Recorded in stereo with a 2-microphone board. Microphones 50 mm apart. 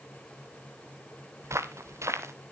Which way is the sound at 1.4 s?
75° right (ahead or behind).